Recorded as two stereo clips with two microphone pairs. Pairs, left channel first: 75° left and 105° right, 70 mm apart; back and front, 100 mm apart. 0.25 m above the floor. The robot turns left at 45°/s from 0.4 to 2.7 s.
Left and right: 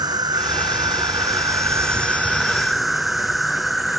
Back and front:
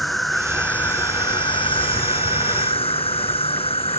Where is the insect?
95° right; by 4.0 s 165° left.